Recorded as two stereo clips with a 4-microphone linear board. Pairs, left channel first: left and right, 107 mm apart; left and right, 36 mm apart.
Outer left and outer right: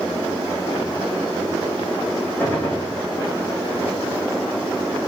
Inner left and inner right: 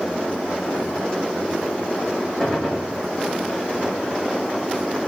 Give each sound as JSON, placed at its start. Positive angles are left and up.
{"t": 2.4, "sound": "a gunshot", "side_deg": 20, "distance_m": 4.5}